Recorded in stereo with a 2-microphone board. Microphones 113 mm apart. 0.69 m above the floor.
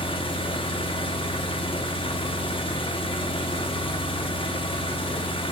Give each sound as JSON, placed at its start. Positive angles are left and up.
{"t": 0.0, "sound": "an engine running", "side_deg": 50, "distance_m": 0.7}